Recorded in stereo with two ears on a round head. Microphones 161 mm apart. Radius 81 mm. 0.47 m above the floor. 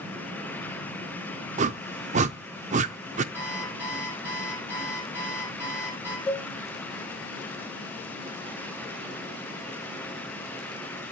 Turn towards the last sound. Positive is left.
turn(degrees=5)  # may be behind; listen again after turning